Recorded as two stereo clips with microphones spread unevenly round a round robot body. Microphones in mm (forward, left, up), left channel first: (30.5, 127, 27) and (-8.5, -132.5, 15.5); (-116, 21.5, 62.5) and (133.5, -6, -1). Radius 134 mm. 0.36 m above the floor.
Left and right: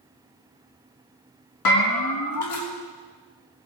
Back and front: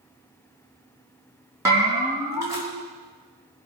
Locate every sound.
1.6 s a bell: 70° left, 4 m